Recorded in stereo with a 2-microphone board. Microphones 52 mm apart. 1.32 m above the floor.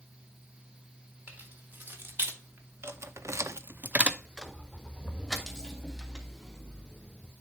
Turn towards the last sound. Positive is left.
turn(degrees=15)  # may be behind; listen again after turning